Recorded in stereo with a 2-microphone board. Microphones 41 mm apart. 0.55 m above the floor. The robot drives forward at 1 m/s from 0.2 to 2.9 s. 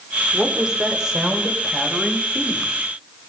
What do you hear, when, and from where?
0.3 s a woman speaking: 25° right (ahead or behind), 1.4 m; by 2.7 s 10° right (ahead or behind), 3.5 m